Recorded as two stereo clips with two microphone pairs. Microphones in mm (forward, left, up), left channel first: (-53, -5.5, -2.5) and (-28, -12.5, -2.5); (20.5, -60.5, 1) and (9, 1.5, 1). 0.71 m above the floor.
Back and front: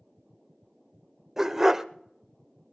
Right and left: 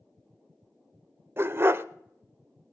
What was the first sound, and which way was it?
A dog barking, 55° left.